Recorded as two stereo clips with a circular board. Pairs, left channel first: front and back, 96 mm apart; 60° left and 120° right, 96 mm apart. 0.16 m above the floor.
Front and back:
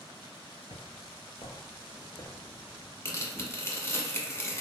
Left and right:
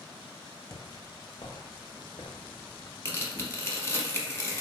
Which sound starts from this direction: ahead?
Footsteps, at 0.7 s.